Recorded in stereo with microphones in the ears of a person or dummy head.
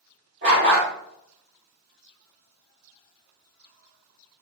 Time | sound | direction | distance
0.4 | a dog barking | 45° right (ahead or behind) | 1.4 m